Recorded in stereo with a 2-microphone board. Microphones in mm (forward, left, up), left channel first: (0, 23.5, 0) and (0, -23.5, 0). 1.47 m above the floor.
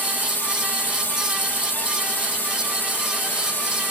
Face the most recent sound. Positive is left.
turn(degrees=45)  # may be behind; listen again after turning